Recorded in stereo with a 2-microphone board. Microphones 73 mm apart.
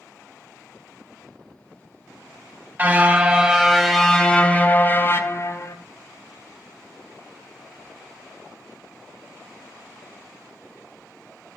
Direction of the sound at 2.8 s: 25° right (ahead or behind).